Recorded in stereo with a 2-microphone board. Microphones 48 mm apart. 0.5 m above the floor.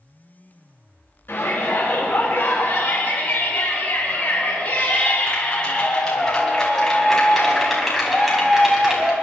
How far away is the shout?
About 6 m.